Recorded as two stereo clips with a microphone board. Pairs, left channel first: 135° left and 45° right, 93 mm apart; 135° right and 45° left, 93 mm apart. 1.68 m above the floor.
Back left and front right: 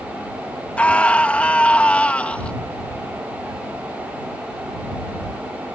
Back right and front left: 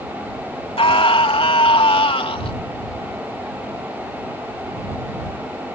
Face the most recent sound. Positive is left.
turn(degrees=-150)